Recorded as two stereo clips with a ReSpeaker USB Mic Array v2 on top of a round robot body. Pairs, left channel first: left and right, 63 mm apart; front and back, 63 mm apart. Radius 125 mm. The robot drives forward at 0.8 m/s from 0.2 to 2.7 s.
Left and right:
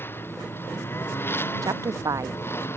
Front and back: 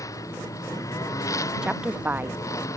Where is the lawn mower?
35° left; by 2.8 s 40° left.